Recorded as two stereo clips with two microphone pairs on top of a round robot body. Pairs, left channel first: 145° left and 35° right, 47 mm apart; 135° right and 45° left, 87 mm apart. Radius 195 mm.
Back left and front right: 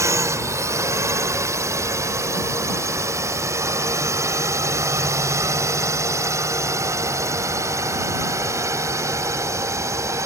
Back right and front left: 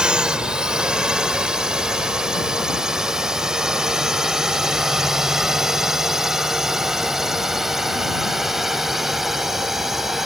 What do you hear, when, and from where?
0.0 s a drone: 35° right; by 10.3 s 40° right